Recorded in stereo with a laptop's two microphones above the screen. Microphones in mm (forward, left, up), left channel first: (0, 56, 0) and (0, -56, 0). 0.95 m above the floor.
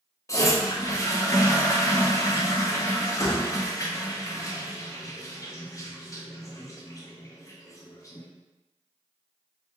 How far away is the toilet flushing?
About 0.6 m.